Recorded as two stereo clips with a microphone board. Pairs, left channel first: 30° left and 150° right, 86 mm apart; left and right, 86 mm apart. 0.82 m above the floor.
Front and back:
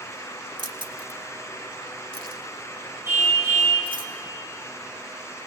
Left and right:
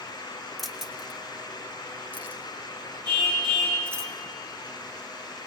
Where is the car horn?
90° right, 7 m.